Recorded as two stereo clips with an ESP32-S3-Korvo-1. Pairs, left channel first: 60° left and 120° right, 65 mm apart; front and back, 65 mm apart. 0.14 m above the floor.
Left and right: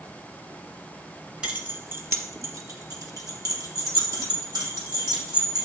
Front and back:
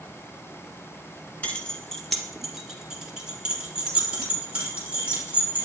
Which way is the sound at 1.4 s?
55° right.